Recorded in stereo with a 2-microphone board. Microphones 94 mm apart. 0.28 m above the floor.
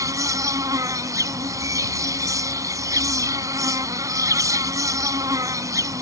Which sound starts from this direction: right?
An insect, at 0.0 s.